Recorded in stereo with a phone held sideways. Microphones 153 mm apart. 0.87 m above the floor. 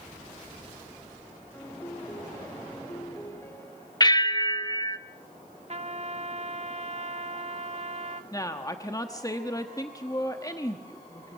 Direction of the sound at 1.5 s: 20° left (ahead or behind).